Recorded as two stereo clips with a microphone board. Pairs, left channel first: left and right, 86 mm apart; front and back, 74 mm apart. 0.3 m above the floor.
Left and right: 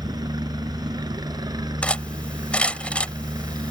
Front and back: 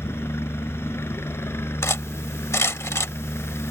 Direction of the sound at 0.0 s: 55° right.